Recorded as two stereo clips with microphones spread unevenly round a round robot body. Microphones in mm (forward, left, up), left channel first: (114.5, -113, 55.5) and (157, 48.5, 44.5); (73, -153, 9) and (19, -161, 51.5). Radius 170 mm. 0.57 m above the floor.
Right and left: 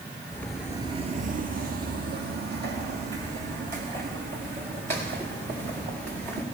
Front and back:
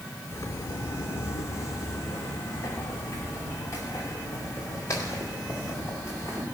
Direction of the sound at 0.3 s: 65° right.